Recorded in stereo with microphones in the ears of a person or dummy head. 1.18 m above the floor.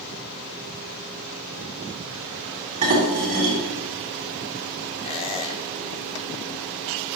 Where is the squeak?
30° left (ahead or behind), 1.1 m.